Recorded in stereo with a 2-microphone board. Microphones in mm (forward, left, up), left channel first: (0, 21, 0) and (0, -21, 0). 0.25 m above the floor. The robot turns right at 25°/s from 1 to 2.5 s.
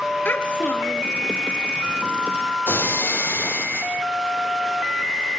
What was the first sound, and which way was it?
A child speaking, 50° left (ahead or behind).